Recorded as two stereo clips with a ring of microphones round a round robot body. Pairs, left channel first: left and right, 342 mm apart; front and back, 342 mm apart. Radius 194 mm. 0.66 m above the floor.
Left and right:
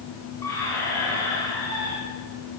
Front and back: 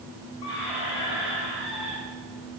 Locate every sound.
0.4 s a squeak: 10° left, 4 m